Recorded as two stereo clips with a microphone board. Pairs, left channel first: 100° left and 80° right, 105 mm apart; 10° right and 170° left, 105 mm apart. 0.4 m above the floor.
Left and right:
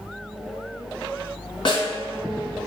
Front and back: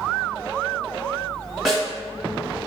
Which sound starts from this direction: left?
A snare drum, at 1.6 s.